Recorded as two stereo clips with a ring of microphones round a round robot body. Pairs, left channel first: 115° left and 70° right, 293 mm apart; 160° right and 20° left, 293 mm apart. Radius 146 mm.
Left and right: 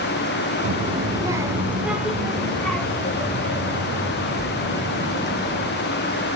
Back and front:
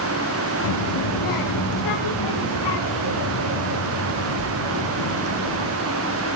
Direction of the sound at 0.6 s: 130° right.